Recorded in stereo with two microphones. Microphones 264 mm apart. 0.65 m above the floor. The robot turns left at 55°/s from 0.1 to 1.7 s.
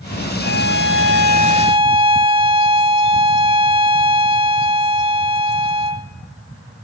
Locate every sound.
0.4 s a violin: 85° right, 0.7 m; by 6.1 s 160° right, 0.7 m